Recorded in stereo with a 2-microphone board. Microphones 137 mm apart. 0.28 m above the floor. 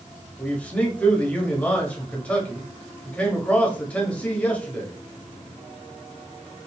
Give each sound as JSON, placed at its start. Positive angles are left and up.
{"t": 0.4, "sound": "a man speaking", "side_deg": 10, "distance_m": 1.1}